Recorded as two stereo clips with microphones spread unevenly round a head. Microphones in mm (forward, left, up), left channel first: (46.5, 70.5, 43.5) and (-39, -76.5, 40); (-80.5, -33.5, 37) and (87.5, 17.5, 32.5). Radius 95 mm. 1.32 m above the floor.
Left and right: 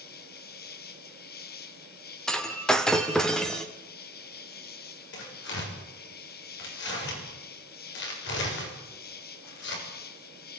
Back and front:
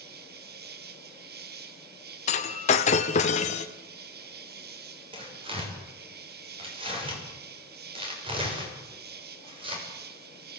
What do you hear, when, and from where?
0.0 s an insect: 40° left, 1.5 m
2.3 s breaking glass: 145° left, 1.6 m
5.1 s tearing paper: 80° left, 7 m